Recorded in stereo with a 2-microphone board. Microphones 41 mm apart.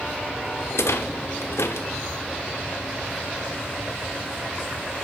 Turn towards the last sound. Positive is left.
turn(degrees=85)